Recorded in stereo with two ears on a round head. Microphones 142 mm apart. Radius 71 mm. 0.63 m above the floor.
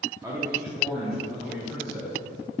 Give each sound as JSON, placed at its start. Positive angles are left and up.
{"t": 0.2, "sound": "a man speaking", "side_deg": -20, "distance_m": 1.0}